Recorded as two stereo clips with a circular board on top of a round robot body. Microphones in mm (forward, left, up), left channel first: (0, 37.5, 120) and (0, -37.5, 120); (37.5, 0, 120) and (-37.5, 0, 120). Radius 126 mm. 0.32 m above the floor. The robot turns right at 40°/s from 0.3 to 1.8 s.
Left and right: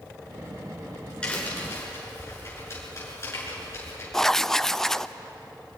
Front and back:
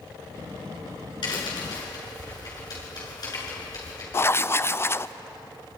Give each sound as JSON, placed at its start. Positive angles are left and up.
{"t": 1.2, "sound": "a crack", "azimuth_deg": 15, "distance_m": 7.0}
{"t": 4.1, "sound": "writing", "azimuth_deg": 10, "distance_m": 0.5}